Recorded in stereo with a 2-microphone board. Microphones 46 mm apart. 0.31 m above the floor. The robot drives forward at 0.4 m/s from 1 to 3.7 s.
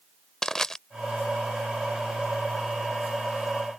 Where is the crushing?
10° left (ahead or behind).